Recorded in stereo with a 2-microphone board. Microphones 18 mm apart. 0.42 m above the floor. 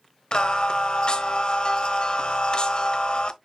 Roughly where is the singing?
Left.